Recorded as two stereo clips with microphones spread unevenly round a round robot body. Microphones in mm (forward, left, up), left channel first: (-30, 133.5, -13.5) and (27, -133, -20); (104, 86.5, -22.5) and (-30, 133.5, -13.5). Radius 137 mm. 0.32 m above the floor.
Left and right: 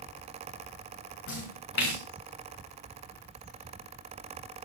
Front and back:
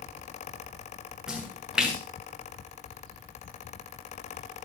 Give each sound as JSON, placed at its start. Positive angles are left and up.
{"t": 1.3, "sound": "a splash", "azimuth_deg": 75, "distance_m": 6.5}